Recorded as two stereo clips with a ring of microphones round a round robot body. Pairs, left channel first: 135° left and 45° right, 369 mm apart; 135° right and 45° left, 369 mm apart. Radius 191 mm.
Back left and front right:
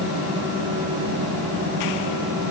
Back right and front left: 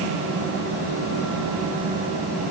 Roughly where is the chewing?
I don't hear chewing.